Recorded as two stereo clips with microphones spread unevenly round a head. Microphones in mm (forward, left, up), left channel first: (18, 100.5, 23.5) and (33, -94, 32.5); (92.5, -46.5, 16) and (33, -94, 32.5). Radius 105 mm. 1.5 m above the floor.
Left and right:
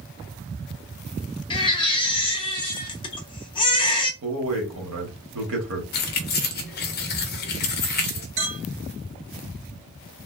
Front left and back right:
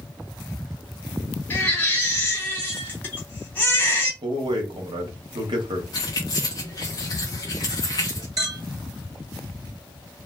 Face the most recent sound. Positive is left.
turn(degrees=-110)